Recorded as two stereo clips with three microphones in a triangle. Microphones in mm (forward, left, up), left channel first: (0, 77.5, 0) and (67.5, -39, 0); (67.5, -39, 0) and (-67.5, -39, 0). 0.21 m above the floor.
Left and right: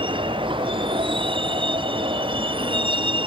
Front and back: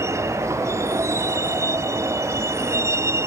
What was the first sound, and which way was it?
A vehicle, 110° right.